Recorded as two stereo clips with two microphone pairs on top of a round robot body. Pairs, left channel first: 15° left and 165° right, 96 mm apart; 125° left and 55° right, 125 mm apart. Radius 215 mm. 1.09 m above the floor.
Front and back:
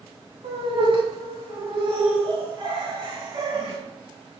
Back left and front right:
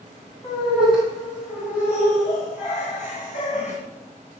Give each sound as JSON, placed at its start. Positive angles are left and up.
{"t": 0.4, "sound": "laughter", "azimuth_deg": 175, "distance_m": 4.0}